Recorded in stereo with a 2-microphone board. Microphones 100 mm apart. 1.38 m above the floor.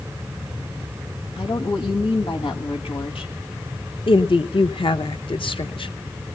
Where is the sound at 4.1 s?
60° left (ahead or behind), 1.0 m.